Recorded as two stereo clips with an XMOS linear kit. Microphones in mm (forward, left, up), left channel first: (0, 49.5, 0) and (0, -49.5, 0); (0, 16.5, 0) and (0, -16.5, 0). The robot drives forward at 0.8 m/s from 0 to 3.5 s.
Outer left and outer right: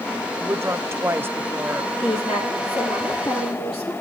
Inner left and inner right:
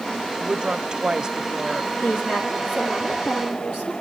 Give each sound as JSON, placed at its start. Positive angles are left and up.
{"t": 0.4, "sound": "a woman speaking", "side_deg": -25, "distance_m": 1.0}
{"t": 2.0, "sound": "a woman speaking", "side_deg": 75, "distance_m": 8.5}